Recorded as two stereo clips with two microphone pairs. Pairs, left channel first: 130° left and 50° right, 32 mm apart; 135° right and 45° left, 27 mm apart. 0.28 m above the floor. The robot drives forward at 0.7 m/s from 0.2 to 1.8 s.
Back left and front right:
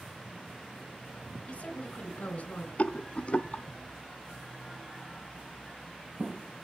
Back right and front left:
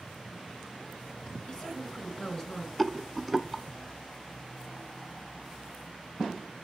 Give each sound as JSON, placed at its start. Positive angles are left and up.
{"t": 1.5, "sound": "a woman speaking", "azimuth_deg": 170, "distance_m": 2.5}
{"t": 2.8, "sound": "a rattle", "azimuth_deg": 130, "distance_m": 0.5}